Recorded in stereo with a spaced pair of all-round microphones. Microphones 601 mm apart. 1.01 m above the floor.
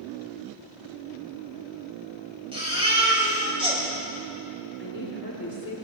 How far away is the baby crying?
About 4.5 m.